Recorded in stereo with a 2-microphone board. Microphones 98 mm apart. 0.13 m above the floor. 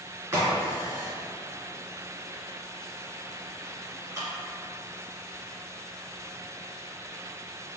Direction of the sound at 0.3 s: 20° right (ahead or behind).